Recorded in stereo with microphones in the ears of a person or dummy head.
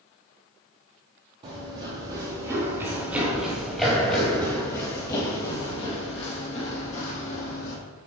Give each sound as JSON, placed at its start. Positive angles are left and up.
{"t": 1.4, "sound": "running footsteps", "side_deg": -35, "distance_m": 2.0}